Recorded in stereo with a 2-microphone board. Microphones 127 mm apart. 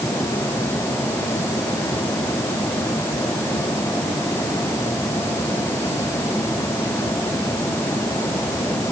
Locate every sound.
Only background noise.